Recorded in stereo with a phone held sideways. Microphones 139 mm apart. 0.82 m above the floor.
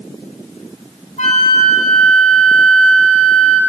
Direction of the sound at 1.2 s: 65° left (ahead or behind).